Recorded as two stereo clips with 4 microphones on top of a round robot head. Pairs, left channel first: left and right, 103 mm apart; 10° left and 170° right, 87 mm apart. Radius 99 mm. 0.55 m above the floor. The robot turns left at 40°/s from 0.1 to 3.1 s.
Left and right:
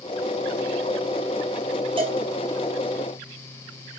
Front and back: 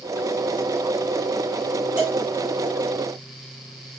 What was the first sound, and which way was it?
A cowbell, 95° right.